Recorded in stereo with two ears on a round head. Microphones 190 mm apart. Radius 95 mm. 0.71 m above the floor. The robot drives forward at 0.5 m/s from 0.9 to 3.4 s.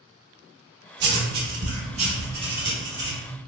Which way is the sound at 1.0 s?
55° right (ahead or behind).